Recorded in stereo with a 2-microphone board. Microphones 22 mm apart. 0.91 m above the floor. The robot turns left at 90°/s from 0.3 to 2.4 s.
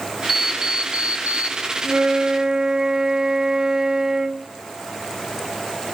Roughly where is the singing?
I don't hear singing.